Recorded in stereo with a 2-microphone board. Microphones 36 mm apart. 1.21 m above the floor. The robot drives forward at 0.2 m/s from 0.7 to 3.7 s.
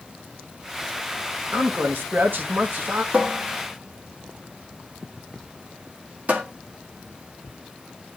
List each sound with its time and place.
1.5 s a man speaking: 70° right (ahead or behind), 1.4 m; by 3.0 s 60° right (ahead or behind), 1.5 m
3.1 s a cupboard door: 40° right (ahead or behind), 1.5 m